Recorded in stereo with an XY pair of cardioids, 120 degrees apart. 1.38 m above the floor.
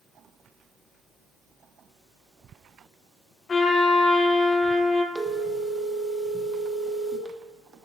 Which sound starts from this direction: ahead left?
A trumpet, at 3.5 s.